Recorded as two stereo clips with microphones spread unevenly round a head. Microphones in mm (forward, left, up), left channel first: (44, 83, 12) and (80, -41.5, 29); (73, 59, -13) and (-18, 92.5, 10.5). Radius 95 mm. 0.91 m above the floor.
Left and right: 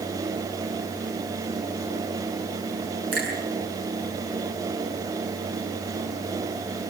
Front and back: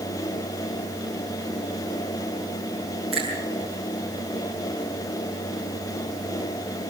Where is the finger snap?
110° right, 7.5 m.